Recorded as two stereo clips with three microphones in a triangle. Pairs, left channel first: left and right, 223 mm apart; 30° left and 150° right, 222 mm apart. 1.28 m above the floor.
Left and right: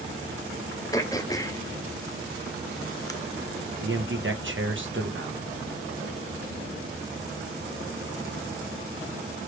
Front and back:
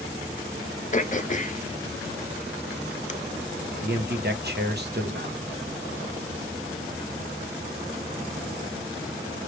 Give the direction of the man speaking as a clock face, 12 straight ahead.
4 o'clock.